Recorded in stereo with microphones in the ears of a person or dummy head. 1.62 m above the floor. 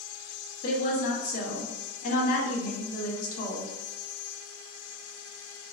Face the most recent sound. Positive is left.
turn(degrees=55)  # may be behind; listen again after turning